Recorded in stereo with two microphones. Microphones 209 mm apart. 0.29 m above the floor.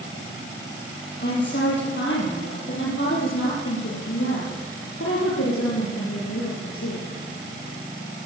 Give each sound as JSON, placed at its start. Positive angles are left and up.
{"t": 1.2, "sound": "a woman speaking", "side_deg": 55, "distance_m": 9.0}